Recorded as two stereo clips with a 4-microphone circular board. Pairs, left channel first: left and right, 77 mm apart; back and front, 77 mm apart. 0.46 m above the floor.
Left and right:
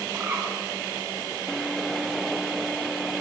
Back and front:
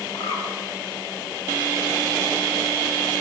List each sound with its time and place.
0.1 s a bird: 160° right, 3.5 m